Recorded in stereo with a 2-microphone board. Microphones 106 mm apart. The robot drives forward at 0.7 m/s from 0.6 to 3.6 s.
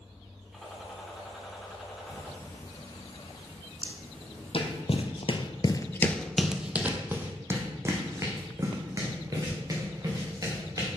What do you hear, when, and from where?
0.5 s a gunshot: centre (ahead or behind), 2.5 m
2.0 s ticking: 25° left (ahead or behind), 1.3 m; by 4.8 s 15° left (ahead or behind), 2.5 m
3.8 s footsteps: 55° left (ahead or behind), 1.4 m; by 10.9 s 35° right (ahead or behind), 3.5 m